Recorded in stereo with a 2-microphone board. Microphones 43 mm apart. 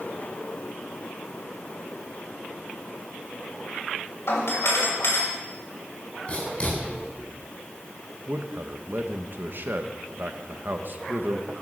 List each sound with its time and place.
4.3 s a doorbell: 75° left (ahead or behind), 6 m
6.3 s writing: 30° left (ahead or behind), 7.5 m
8.3 s a man speaking: 50° right (ahead or behind), 1.1 m